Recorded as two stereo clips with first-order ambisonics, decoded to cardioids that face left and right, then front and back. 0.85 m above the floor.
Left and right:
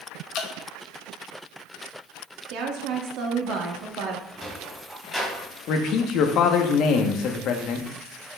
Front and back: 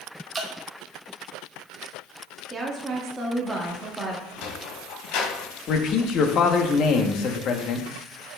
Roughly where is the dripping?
Left.